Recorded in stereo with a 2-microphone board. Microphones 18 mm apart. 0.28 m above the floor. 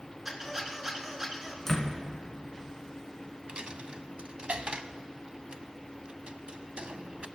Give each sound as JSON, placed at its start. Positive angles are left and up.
{"t": 0.2, "sound": "a squeak", "side_deg": -25, "distance_m": 3.0}
{"t": 1.7, "sound": "a door slam", "side_deg": 25, "distance_m": 2.0}
{"t": 3.5, "sound": "a dropped coin", "side_deg": -65, "distance_m": 0.5}